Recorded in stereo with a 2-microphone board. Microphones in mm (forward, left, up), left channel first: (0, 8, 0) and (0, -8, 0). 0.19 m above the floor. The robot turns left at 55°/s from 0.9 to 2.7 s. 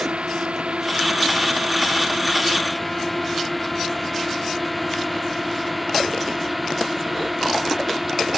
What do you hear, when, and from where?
0.0 s a drone: 85° right; by 8.4 s 10° right (ahead or behind)